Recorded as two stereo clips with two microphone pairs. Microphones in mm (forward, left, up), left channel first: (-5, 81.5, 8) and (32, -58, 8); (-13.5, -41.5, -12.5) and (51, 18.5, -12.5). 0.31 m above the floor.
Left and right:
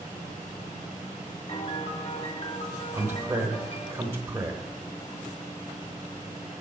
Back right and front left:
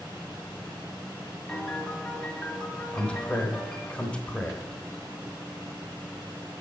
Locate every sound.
1.5 s a piano: 140° left, 1.1 m
2.9 s a man speaking: 90° right, 1.0 m